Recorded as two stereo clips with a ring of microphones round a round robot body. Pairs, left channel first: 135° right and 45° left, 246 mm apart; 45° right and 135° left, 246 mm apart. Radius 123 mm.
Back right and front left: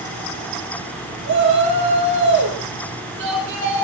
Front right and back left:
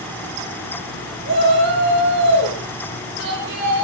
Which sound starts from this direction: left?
A shout, at 1.2 s.